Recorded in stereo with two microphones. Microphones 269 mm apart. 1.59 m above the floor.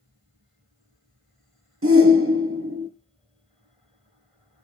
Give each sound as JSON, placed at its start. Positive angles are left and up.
{"t": 1.8, "sound": "a shout", "side_deg": -55, "distance_m": 0.6}